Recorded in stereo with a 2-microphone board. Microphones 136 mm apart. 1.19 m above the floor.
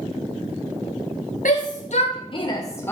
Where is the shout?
70° left (ahead or behind), 1.0 m; by 2.9 s 15° left (ahead or behind), 1.0 m.